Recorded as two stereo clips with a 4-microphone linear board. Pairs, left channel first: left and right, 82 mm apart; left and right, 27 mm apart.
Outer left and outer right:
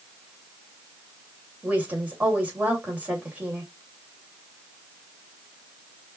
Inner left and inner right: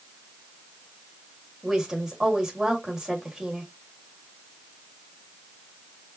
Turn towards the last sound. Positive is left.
turn(degrees=-20)  # may be behind; listen again after turning